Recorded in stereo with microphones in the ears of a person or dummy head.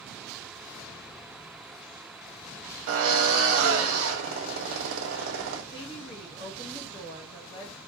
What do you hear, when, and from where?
2.9 s a drill: 70° right (ahead or behind), 1.2 m
5.7 s a woman speaking: 25° left (ahead or behind), 0.7 m